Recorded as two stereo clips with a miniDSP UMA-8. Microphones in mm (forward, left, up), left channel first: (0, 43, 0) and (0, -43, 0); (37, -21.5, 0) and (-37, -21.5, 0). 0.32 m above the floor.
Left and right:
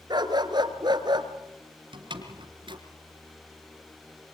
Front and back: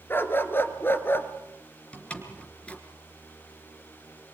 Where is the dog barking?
60° right, 1.9 m.